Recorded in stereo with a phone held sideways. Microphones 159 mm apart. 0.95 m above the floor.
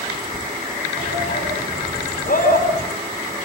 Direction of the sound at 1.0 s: 60° left (ahead or behind).